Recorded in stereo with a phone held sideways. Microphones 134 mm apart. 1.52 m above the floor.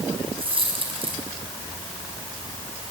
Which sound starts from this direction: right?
A dropped coin, at 0.4 s.